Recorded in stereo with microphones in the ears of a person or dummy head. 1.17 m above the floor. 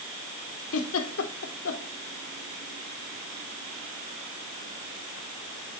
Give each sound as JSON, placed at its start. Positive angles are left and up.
{"t": 0.7, "sound": "a giggle", "side_deg": 75, "distance_m": 2.0}